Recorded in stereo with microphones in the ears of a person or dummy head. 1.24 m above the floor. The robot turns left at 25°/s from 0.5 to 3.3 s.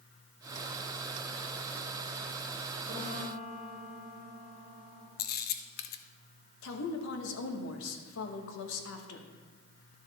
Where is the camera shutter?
50° left (ahead or behind), 0.6 m.